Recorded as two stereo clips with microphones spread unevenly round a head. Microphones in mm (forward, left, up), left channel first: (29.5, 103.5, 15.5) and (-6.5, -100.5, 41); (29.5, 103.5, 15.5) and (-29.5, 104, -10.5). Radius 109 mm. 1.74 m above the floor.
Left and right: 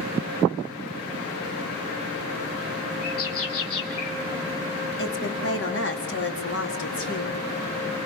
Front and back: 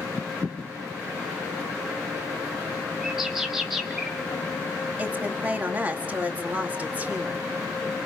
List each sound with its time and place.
3.0 s a bird: 95° left, 3.5 m
5.0 s a woman speaking: 115° left, 4.5 m